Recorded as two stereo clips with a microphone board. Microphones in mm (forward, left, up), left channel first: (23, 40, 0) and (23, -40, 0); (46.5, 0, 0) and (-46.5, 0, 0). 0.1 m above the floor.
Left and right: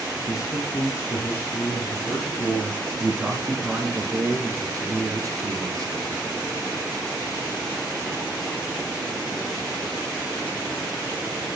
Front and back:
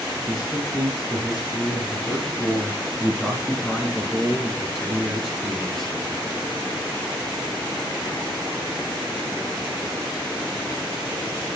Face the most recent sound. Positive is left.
turn(degrees=-90)